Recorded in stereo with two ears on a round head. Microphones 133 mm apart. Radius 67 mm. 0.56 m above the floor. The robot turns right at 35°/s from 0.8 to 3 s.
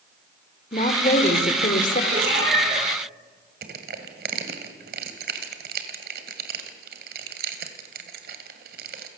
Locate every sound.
0.7 s a woman speaking: 50° left, 2 m; by 2.0 s 95° left, 2 m
2.1 s a cat meowing: 70° right (ahead or behind), 7 m; by 2.8 s 45° right (ahead or behind), 7 m
3.6 s crushing: 65° right (ahead or behind), 2 m